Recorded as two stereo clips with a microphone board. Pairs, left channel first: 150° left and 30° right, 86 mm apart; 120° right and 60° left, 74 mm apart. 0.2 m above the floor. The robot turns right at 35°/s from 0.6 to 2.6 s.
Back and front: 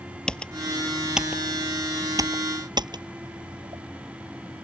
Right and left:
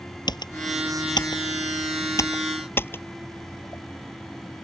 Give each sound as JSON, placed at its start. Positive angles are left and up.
{"t": 0.3, "sound": "typing on a keyboard", "azimuth_deg": -130}